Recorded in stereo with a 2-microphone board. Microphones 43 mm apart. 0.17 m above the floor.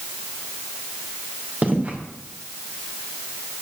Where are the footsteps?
40° right (ahead or behind), 3 m.